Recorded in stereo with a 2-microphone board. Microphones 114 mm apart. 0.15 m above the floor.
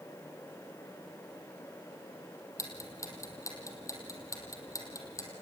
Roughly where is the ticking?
Left.